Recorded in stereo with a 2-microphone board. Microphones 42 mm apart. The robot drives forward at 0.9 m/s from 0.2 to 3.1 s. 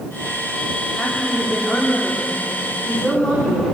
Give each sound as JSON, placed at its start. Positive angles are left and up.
{"t": 1.0, "sound": "a woman speaking", "side_deg": 20, "distance_m": 8.5}